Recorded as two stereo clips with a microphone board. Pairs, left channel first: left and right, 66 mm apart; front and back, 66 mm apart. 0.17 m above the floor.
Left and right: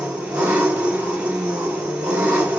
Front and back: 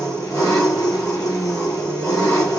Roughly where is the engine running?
Ahead right.